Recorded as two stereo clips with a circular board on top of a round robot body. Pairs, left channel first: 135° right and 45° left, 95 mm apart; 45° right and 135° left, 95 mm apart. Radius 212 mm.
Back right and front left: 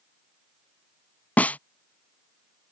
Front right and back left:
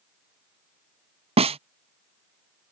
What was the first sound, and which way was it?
A snare drum, 150° left.